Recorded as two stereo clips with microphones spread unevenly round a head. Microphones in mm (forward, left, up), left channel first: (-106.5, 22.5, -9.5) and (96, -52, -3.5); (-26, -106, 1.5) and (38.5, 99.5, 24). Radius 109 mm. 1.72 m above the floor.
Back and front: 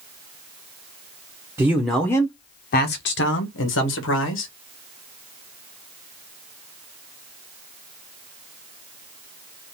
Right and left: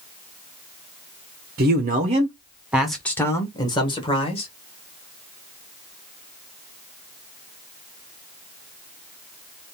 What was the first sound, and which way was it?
A man speaking, 55° left.